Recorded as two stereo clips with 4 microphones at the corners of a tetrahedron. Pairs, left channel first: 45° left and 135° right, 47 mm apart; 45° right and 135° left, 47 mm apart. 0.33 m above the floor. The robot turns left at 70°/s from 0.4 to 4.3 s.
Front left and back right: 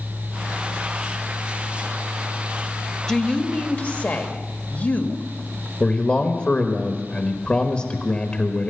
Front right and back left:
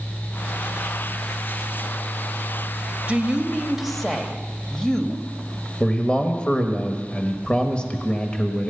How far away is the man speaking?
About 1.3 m.